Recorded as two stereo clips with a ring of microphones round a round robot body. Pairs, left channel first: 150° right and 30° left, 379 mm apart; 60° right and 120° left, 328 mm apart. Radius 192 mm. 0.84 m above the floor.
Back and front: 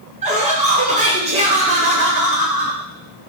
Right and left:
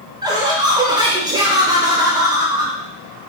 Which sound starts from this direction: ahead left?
Laughter, at 0.2 s.